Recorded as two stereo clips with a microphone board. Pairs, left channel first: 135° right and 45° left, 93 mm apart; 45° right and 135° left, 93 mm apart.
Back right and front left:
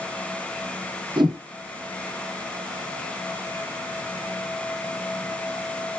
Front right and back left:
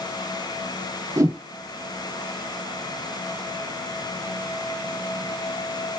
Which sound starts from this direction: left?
A whoosh, at 1.2 s.